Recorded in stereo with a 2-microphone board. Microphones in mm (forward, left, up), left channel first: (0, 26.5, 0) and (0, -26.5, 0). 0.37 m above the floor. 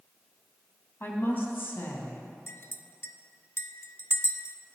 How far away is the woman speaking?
About 3 m.